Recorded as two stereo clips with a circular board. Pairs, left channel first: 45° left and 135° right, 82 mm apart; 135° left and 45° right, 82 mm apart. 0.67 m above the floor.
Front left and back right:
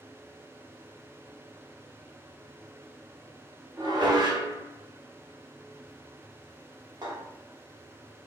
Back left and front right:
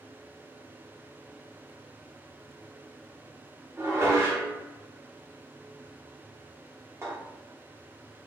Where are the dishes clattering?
100° right, 1.1 m.